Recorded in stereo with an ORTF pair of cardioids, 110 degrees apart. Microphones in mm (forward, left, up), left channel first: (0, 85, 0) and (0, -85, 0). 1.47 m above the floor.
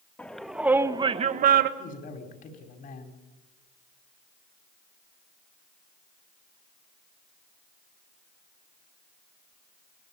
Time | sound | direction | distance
0.2 | a shout | 10° left | 2 m
1.8 | a man speaking | 55° left | 4.5 m